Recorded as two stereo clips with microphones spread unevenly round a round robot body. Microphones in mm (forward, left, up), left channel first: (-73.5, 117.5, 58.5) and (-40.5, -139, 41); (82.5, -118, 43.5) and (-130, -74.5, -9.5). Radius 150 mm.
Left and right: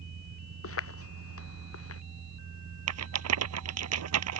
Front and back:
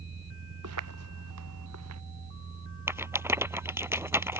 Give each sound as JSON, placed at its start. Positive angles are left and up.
{"t": 0.6, "sound": "footsteps", "azimuth_deg": 135}
{"t": 2.9, "sound": "a rattle", "azimuth_deg": -110}